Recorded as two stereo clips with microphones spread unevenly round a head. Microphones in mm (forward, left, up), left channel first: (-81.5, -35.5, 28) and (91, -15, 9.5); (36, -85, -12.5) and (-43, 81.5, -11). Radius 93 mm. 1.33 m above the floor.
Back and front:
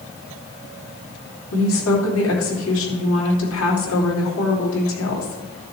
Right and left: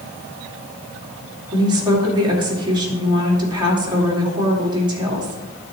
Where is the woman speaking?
175° right, 3 m.